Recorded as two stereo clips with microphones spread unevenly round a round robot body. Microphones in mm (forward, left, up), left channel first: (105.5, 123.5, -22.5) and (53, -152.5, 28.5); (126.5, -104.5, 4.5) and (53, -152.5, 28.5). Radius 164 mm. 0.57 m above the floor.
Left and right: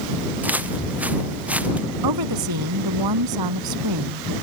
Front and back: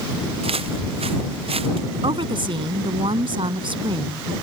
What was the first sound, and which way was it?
Footsteps, 175° left.